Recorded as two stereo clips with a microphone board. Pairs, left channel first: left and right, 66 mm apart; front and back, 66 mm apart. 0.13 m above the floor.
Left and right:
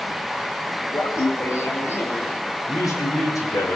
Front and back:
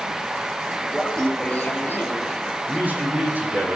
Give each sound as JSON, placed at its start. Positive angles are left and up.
{"t": 0.9, "sound": "laughter", "azimuth_deg": 90, "distance_m": 2.5}
{"t": 2.7, "sound": "a man speaking", "azimuth_deg": 120, "distance_m": 5.0}